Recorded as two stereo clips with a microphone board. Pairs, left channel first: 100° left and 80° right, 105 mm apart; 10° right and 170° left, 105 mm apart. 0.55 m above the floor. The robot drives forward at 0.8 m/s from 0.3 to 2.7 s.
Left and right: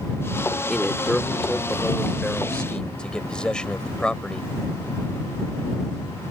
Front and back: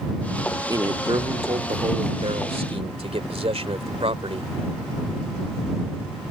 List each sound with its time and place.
0.7 s a man speaking: 175° right; by 4.5 s straight behind